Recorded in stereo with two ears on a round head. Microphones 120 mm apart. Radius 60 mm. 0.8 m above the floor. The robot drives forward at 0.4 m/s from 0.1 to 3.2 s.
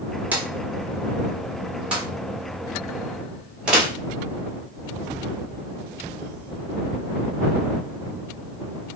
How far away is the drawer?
About 1.3 m.